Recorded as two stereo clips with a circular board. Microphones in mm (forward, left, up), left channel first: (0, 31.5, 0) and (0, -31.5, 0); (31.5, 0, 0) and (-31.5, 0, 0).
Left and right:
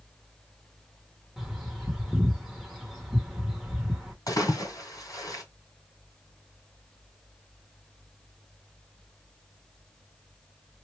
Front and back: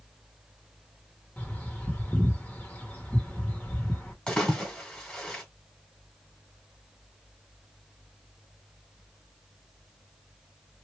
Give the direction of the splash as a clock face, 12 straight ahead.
9 o'clock.